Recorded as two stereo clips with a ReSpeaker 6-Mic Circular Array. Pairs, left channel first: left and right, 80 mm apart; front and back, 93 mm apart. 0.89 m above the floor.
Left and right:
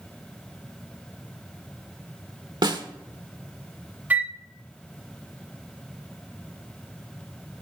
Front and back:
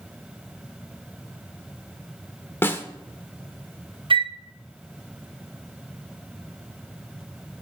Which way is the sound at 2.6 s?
65° right.